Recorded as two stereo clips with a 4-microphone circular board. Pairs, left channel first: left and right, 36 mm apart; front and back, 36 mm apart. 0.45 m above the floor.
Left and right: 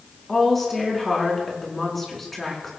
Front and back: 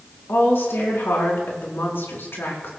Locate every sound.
0.3 s a woman speaking: 5° left, 4.5 m